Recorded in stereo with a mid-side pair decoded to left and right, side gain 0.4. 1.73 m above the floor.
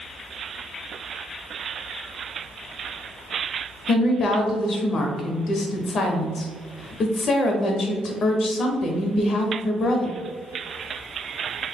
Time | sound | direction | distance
3.9 | a woman speaking | 60° left | 1.0 m